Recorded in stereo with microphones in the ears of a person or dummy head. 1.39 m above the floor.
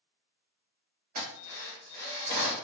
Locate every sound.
1.1 s a drill: 40° right (ahead or behind), 1.0 m